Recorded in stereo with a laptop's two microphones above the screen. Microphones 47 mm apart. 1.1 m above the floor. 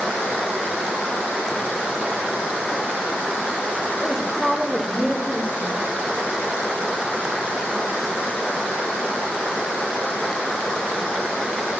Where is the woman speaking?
10° right (ahead or behind), 3 m; by 5.8 s 30° right (ahead or behind), 2 m.